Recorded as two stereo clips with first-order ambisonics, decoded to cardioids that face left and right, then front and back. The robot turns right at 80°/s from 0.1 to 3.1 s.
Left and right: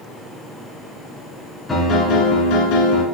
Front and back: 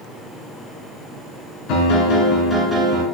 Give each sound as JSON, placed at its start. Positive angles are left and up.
{"t": 1.7, "sound": "a piano", "azimuth_deg": 10, "distance_m": 2.5}